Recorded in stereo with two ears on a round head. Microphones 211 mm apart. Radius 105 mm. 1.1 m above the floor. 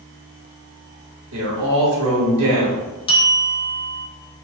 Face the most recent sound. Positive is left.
turn(degrees=25)  # may be behind; listen again after turning